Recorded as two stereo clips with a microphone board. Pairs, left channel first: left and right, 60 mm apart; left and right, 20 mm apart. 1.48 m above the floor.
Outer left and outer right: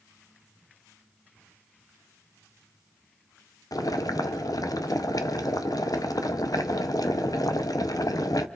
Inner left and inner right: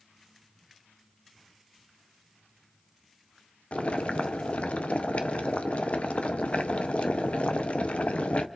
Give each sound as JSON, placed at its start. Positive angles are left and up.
{"t": 3.7, "sound": "boiling", "side_deg": 85, "distance_m": 0.8}